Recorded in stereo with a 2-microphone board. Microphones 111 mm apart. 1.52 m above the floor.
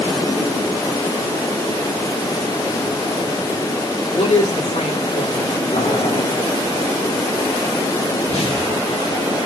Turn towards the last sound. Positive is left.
turn(degrees=65)  # may be behind; listen again after turning